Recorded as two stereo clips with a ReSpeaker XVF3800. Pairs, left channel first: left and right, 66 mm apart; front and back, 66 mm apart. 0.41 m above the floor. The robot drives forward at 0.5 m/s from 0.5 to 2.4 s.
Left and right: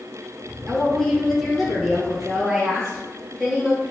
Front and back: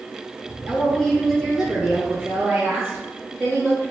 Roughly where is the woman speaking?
Ahead.